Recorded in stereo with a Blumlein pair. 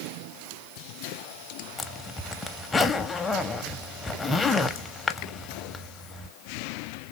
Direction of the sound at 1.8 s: 10° left.